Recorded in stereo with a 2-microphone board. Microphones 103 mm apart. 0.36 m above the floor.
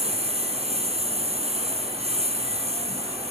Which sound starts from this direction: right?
A lawn mower, at 0.0 s.